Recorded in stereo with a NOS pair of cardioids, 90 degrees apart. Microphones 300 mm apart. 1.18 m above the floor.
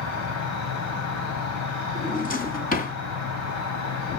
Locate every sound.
0.0 s an insect: 65° left, 3.5 m
1.9 s a drawer: 30° left, 3.5 m